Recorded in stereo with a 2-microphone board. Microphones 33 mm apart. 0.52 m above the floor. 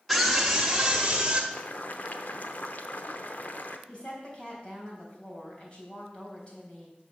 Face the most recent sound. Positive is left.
turn(degrees=30)  # may be behind; listen again after turning